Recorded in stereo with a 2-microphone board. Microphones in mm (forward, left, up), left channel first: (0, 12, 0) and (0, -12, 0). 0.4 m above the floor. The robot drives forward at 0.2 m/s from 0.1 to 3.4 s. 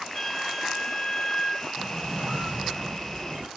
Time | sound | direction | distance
0.1 | a flute | 5° left (ahead or behind) | 1.1 m
1.8 | a squeak | 45° right (ahead or behind) | 2.0 m